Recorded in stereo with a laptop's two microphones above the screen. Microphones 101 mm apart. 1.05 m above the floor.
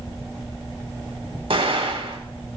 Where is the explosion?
65° right (ahead or behind), 3 m.